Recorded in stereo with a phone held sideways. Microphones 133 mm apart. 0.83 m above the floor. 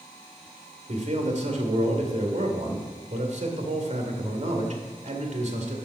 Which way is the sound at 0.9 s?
60° right (ahead or behind).